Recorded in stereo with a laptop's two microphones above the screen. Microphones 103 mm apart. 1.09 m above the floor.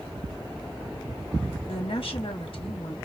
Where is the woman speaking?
60° left (ahead or behind), 1.3 m.